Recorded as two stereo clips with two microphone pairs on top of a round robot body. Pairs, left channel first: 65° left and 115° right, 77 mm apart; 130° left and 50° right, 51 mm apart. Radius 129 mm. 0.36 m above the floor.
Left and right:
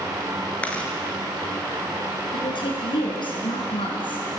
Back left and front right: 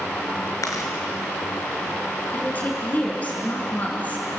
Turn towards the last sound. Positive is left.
turn(degrees=70)